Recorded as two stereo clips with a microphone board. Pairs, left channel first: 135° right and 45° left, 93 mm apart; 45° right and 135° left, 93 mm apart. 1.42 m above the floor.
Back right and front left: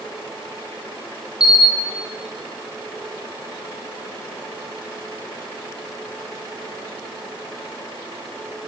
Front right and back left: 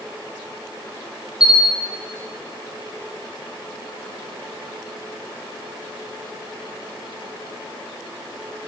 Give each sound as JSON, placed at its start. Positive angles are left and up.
{"t": 1.4, "sound": "a camera shutter", "azimuth_deg": 130, "distance_m": 0.7}